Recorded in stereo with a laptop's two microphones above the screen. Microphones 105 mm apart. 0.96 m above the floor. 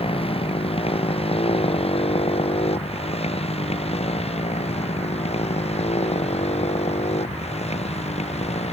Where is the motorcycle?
65° left (ahead or behind); by 8.7 s 85° left.